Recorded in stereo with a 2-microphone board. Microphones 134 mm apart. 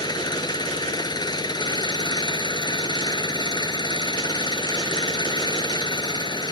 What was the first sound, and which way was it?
An engine running, 30° left (ahead or behind).